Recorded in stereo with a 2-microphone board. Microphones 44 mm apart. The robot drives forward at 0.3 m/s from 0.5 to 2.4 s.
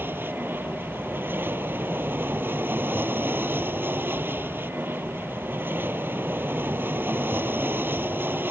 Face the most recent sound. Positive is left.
turn(degrees=-55)  # may be behind; listen again after turning